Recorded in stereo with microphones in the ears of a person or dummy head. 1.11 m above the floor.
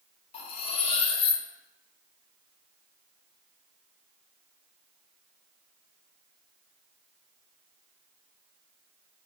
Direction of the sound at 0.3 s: 40° left (ahead or behind).